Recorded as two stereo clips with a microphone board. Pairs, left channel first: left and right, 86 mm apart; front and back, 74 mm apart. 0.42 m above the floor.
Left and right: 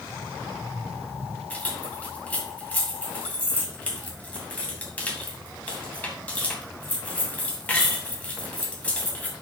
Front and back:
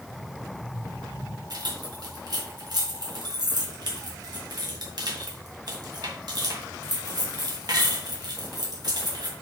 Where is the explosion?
5° right, 3 m.